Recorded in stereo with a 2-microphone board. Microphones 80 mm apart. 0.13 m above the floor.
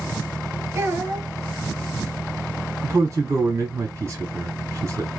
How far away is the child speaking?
About 1.9 m.